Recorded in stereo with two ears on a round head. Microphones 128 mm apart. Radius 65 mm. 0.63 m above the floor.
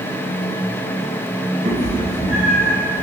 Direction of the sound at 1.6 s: 45° right (ahead or behind).